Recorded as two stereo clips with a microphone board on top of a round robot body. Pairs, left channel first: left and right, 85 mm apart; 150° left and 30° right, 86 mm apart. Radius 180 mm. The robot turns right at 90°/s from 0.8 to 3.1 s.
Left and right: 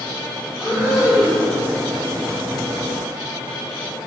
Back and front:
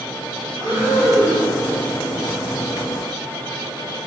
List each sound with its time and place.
0.5 s breathing: 35° left, 0.9 m; by 1.5 s 100° left, 0.9 m